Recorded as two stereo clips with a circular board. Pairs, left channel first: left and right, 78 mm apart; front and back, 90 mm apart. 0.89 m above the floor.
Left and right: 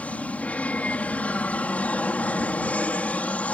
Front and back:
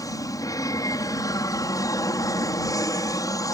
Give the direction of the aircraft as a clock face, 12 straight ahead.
11 o'clock.